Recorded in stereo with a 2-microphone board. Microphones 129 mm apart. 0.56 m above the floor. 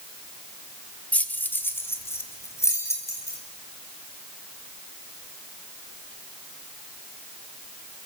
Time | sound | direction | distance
1.1 | keys jangling | 10° left (ahead or behind) | 1.1 m